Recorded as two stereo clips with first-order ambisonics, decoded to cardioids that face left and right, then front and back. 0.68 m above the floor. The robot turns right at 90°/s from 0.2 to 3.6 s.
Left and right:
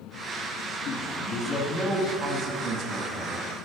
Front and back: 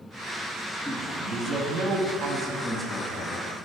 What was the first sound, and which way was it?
A man speaking, 90° left.